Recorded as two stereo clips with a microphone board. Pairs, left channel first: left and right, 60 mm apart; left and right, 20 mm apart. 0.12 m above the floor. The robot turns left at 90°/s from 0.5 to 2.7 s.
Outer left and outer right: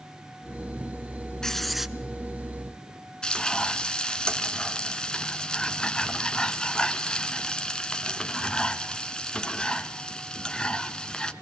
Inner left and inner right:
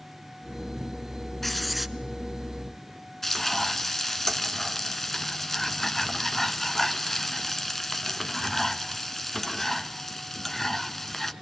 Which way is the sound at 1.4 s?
10° left (ahead or behind).